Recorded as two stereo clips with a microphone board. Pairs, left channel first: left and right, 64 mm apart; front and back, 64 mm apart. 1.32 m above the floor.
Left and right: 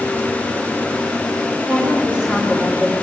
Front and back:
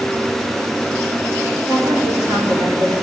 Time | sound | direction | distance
1.6 | a woman speaking | 160° right | 6 m